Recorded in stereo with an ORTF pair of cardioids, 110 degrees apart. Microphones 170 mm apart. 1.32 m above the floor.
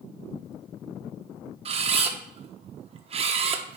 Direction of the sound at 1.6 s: 40° right.